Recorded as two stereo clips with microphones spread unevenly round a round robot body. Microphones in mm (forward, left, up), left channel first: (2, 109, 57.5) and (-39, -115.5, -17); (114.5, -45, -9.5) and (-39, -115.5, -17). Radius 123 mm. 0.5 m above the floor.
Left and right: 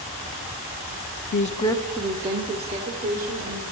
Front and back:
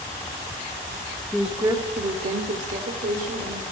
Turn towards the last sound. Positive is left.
turn(degrees=-130)